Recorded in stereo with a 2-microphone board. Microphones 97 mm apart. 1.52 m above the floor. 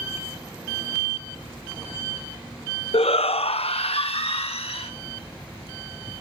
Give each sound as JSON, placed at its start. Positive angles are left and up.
{"t": 2.9, "sound": "a shout", "side_deg": 80, "distance_m": 0.6}